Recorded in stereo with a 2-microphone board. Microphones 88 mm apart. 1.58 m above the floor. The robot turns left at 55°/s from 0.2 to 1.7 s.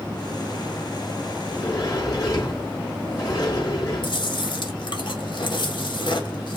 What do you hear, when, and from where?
1.4 s a sliding door: 30° left (ahead or behind), 3.5 m; by 4.2 s 40° left (ahead or behind), 3.5 m
4.0 s chewing: 60° left (ahead or behind), 1.8 m